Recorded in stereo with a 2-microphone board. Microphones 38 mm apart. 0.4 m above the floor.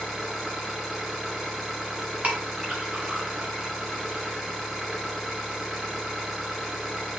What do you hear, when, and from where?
0.0 s an engine running: 10° right (ahead or behind), 1.9 m
2.2 s a clink: 40° right (ahead or behind), 1.9 m